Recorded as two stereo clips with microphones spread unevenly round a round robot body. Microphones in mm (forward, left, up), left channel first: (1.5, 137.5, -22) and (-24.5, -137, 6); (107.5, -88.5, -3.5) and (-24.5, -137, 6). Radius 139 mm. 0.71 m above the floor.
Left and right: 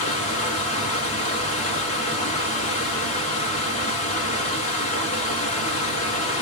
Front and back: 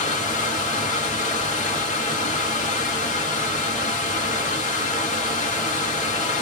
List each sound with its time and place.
0.0 s running water: 25° left, 1.0 m